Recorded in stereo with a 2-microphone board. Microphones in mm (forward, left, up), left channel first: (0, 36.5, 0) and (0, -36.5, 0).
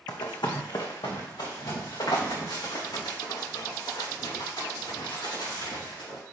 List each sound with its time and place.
0.1 s running footsteps: 70° left (ahead or behind), 1.2 m; by 6.2 s 75° left (ahead or behind), 6 m